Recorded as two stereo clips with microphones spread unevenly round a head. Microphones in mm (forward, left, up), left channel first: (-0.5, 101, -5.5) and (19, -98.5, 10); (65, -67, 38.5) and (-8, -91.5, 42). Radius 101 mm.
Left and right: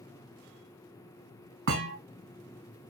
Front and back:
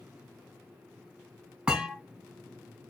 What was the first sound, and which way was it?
A thud, 85° right.